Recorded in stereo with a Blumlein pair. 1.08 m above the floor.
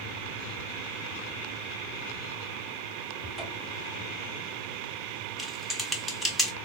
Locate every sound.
3.2 s a cupboard door: 5° left, 3 m
5.4 s typing on a keyboard: straight ahead, 0.8 m